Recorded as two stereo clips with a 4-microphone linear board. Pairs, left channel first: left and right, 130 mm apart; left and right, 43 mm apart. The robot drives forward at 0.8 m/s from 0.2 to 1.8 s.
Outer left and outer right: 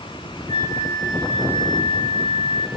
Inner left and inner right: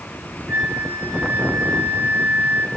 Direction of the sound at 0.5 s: 80° right.